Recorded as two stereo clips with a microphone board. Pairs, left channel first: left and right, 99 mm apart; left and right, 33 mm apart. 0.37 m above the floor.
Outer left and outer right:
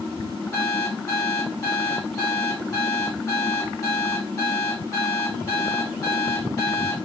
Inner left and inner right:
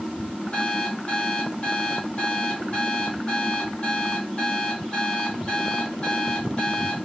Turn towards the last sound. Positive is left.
turn(degrees=35)  # may be behind; listen again after turning